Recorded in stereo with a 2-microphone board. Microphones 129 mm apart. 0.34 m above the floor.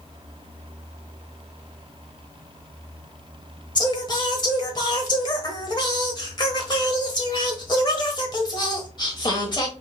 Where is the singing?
35° left (ahead or behind), 1.0 m.